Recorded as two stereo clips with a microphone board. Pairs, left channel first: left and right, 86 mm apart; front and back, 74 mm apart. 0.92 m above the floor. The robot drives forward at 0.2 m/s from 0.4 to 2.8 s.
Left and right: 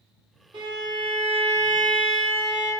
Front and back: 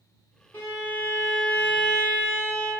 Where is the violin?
65° right, 1.7 m; by 2.8 s 80° right, 1.6 m.